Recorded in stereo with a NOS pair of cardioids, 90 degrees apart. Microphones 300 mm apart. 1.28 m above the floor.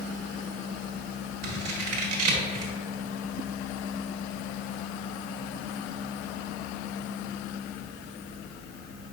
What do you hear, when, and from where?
1.4 s scissors: 55° right, 1.2 m